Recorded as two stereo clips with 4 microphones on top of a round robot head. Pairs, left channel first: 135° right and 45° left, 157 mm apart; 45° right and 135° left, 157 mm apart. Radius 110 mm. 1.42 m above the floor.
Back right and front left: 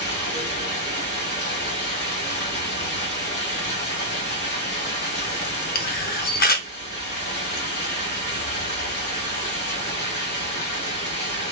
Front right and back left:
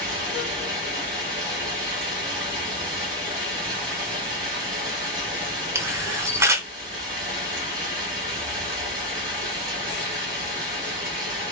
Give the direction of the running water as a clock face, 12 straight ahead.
5 o'clock.